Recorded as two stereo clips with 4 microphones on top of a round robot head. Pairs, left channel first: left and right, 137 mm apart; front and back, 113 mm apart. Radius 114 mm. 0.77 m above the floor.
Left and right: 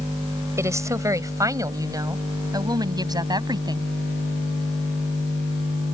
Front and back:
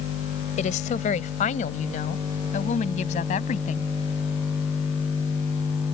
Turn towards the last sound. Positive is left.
turn(degrees=-30)